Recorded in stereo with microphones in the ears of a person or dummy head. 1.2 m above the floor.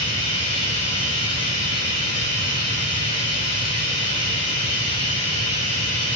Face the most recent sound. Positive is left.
turn(degrees=45)  # may be behind; listen again after turning